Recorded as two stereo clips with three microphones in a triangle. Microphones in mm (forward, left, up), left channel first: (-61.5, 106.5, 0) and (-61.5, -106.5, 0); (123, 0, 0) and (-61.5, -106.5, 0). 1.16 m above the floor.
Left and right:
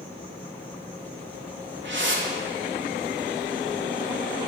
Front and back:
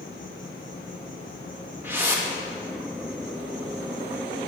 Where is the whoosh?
70° right, 2.0 m.